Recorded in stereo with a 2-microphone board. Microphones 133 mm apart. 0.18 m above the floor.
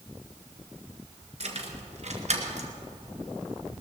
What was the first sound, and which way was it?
Keys jangling, 55° right (ahead or behind).